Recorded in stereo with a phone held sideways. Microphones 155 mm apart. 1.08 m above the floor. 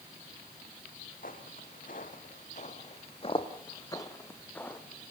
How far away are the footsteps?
About 2.5 m.